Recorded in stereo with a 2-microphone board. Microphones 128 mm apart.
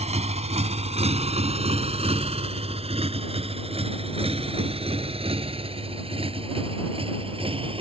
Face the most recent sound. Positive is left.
turn(degrees=-45)  # may be behind; listen again after turning